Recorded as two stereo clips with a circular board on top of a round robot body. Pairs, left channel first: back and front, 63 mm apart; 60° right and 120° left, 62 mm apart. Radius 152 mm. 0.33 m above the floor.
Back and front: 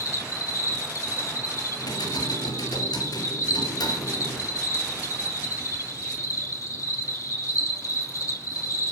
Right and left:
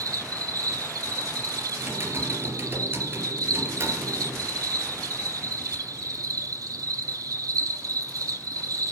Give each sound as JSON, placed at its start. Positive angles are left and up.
{"t": 0.0, "sound": "an insect", "azimuth_deg": 145, "distance_m": 5.0}
{"t": 1.8, "sound": "typing on a keyboard", "azimuth_deg": 175, "distance_m": 3.5}